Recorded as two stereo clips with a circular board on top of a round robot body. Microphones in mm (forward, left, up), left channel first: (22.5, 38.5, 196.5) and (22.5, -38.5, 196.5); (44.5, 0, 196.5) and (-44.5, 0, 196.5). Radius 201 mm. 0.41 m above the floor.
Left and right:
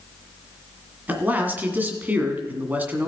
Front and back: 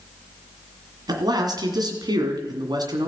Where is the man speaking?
155° right, 2 m.